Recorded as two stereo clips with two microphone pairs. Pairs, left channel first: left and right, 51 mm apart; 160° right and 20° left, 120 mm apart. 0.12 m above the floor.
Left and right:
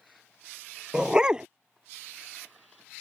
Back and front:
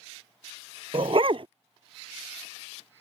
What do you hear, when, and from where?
0.9 s a dog barking: 20° right